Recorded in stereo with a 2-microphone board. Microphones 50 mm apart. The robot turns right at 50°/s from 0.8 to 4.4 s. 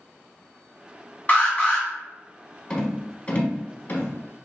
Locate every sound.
1.3 s an alarm: 30° left (ahead or behind), 1.0 m; by 1.9 s 20° left (ahead or behind), 1.0 m
2.7 s a rattle: 15° left (ahead or behind), 0.9 m; by 4.1 s 35° left (ahead or behind), 0.9 m